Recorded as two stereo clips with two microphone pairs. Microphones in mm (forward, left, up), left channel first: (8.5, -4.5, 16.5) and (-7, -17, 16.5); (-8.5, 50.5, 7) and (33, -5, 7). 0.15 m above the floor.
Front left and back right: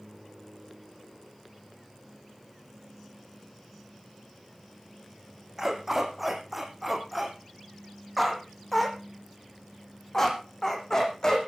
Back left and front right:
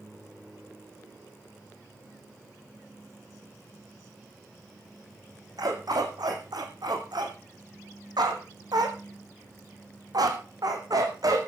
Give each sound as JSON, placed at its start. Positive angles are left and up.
{"t": 5.6, "sound": "a dog barking", "azimuth_deg": -75, "distance_m": 4.0}